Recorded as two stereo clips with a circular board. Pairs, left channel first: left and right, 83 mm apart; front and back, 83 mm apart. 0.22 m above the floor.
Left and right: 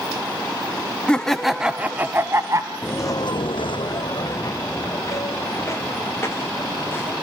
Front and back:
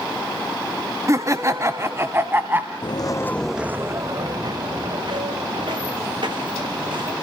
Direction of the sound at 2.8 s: 25° left.